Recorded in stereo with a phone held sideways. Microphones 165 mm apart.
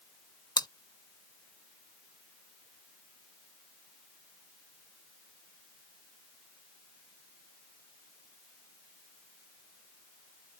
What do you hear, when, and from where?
0.6 s chewing: 25° left (ahead or behind)